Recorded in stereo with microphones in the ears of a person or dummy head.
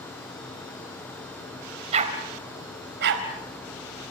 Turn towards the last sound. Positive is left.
turn(degrees=-80)